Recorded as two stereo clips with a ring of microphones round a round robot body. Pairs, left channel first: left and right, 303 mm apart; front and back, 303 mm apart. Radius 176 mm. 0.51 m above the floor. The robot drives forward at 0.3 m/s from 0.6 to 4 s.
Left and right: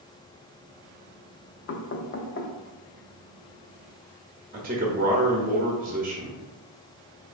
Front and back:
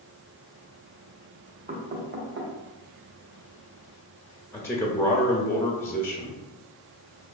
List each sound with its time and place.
1.7 s knocking: 120° left, 0.6 m; by 2.5 s 140° left, 0.8 m
4.5 s a man speaking: 75° right, 0.7 m